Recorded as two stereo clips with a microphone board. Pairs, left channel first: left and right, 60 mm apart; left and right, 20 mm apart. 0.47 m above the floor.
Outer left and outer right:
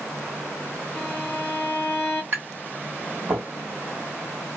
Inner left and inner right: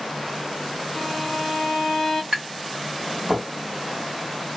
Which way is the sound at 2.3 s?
40° right (ahead or behind).